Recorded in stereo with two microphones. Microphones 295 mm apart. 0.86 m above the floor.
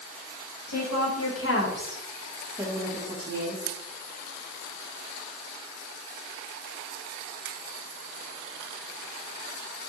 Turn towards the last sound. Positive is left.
turn(degrees=-45)  # may be behind; listen again after turning